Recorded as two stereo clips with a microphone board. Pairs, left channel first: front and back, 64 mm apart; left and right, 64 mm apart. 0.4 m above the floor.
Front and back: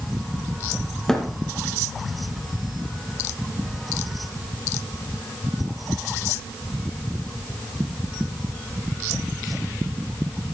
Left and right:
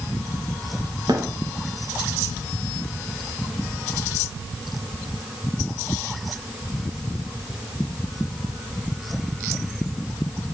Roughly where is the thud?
Right.